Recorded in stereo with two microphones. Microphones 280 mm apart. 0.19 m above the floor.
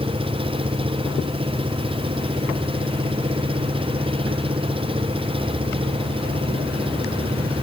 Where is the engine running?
20° right (ahead or behind).